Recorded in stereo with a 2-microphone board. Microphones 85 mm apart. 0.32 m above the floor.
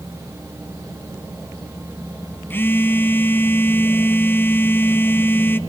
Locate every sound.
2.5 s a phone buzzing: 25° left (ahead or behind), 1.0 m